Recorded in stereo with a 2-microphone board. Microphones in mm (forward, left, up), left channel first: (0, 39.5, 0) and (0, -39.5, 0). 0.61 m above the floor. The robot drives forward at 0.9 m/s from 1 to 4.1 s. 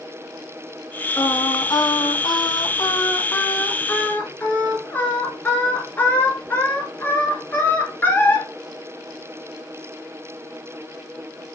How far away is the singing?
About 1.2 m.